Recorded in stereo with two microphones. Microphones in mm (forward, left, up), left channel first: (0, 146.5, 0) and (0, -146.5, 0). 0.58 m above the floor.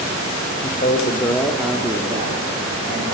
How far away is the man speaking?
About 1.1 m.